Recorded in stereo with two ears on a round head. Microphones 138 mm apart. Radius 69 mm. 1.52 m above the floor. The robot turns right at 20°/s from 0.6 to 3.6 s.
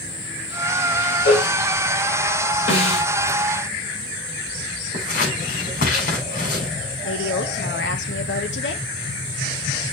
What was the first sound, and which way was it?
A cowbell, 90° left.